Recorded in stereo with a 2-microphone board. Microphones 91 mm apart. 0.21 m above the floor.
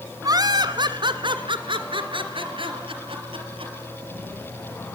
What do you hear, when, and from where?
0.2 s laughter: 45° right (ahead or behind), 1.6 m; by 3.7 s 75° right (ahead or behind), 4.5 m